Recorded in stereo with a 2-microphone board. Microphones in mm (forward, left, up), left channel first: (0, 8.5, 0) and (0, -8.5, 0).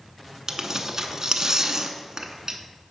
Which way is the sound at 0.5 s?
40° right (ahead or behind).